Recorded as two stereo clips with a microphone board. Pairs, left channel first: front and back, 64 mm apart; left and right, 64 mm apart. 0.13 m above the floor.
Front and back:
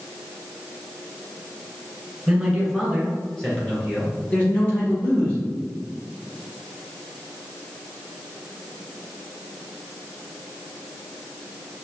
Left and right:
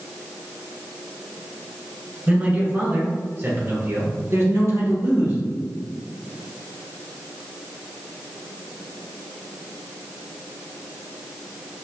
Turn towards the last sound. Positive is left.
turn(degrees=-60)